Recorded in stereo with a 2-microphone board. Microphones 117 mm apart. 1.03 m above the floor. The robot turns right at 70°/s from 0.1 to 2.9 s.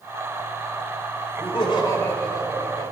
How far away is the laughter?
About 1.4 m.